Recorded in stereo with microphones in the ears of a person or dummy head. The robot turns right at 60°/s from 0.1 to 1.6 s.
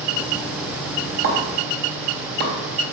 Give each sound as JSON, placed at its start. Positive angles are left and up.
{"t": 1.2, "sound": "a pop", "side_deg": -65, "distance_m": 3.5}